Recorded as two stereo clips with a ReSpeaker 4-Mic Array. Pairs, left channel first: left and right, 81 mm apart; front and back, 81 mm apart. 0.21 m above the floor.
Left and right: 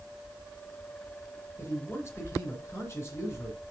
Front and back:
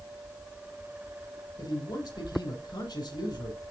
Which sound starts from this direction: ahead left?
A man speaking, at 1.6 s.